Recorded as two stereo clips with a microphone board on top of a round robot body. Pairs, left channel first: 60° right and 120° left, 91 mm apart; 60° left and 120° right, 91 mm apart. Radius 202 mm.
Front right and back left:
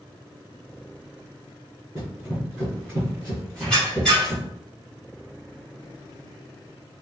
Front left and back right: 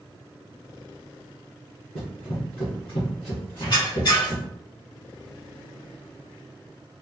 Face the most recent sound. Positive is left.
turn(degrees=20)